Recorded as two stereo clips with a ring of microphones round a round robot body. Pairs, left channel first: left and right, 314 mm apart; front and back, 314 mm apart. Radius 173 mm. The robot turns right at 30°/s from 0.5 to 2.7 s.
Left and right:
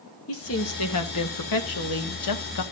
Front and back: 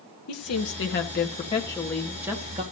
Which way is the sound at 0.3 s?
40° left.